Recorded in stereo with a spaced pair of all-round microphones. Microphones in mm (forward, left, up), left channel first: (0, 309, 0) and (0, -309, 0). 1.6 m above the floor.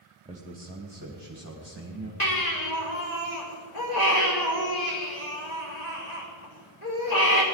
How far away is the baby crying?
About 3 m.